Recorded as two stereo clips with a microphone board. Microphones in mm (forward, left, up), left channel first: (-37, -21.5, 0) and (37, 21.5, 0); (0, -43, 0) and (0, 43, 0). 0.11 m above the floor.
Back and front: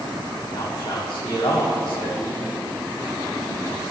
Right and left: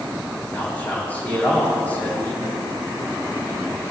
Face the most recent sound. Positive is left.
turn(degrees=-160)